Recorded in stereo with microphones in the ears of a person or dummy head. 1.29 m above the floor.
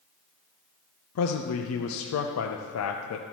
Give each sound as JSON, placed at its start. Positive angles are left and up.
{"t": 1.1, "sound": "a man speaking", "side_deg": 85, "distance_m": 0.6}